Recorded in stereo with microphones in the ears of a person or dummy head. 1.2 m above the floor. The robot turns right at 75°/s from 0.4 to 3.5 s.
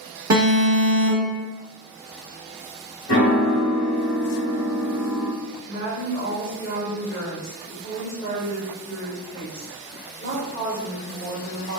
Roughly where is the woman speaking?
Left.